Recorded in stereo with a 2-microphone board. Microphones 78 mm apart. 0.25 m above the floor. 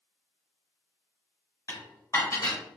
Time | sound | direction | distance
1.7 | dishes clattering | 50° left (ahead or behind) | 1.2 m